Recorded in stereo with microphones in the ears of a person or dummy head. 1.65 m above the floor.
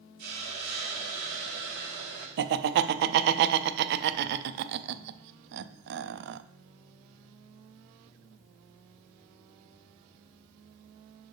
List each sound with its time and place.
0.2 s a hiss: 45° right (ahead or behind), 1.3 m
2.4 s laughter: 60° right (ahead or behind), 0.5 m